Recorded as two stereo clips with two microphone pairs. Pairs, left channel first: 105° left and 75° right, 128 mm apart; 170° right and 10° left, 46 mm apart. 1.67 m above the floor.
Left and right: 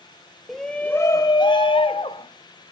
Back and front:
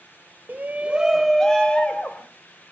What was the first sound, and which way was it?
A shout, 20° left.